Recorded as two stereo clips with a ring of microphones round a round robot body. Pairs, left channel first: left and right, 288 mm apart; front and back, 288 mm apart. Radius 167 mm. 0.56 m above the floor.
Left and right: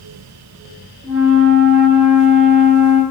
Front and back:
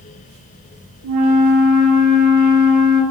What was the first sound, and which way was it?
A flute, 175° right.